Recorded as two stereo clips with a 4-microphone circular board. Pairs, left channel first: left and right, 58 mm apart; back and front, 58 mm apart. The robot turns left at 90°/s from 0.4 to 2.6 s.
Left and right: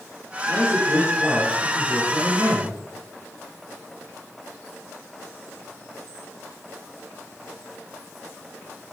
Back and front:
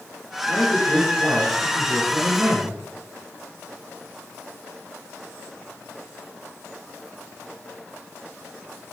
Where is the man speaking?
120° left, 5 m; by 2.8 s 75° right, 5 m.